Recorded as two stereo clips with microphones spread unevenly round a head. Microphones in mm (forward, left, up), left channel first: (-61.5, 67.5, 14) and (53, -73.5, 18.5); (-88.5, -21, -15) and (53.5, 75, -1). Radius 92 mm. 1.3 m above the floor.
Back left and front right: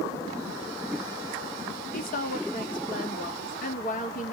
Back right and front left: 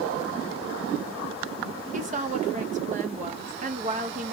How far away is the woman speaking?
About 1.3 m.